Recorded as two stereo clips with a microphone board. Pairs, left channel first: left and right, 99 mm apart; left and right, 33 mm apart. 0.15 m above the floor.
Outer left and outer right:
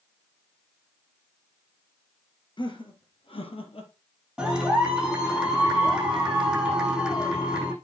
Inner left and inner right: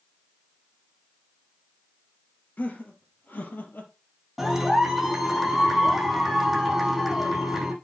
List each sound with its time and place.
2.6 s laughter: 55° left (ahead or behind), 3 m; by 3.9 s 70° left (ahead or behind), 3 m
4.4 s a clap: 5° right (ahead or behind), 7 m